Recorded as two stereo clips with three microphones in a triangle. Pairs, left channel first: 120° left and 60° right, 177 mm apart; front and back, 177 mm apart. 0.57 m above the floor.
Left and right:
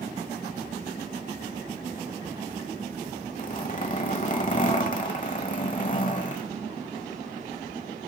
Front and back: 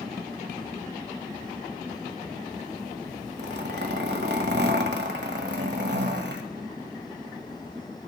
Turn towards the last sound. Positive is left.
turn(degrees=165)